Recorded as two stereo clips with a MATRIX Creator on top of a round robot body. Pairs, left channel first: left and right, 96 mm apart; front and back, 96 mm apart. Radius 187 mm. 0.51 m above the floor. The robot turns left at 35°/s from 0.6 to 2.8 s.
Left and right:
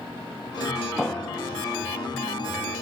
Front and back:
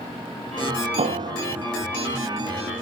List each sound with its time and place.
1.0 s a piano: straight behind, 0.9 m; by 1.6 s 155° left, 0.9 m